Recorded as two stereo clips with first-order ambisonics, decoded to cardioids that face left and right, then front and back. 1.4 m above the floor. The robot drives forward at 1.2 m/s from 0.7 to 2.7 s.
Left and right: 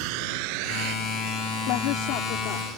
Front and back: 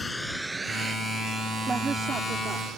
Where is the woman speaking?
105° left; by 2.7 s 120° left.